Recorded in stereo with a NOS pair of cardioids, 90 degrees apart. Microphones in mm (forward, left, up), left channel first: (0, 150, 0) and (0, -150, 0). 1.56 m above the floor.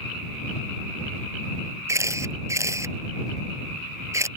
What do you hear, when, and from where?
1.9 s a camera shutter: 10° right